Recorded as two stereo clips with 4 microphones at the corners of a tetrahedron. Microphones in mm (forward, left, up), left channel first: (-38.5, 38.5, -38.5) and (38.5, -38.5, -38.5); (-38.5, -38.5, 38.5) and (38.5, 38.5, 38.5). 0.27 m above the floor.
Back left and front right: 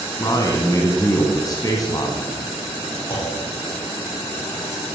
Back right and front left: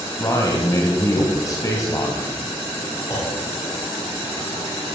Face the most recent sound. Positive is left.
turn(degrees=170)